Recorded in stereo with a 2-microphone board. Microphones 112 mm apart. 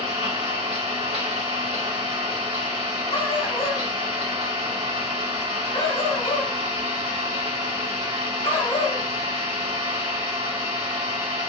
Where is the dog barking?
60° left (ahead or behind), 2.5 m.